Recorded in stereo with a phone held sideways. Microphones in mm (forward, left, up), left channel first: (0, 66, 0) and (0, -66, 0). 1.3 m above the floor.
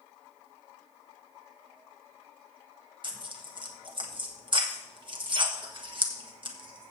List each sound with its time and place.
3.0 s tearing paper: 40° right (ahead or behind), 1.5 m